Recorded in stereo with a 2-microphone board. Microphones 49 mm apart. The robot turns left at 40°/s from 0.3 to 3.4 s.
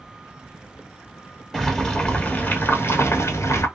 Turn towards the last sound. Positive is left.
turn(degrees=115)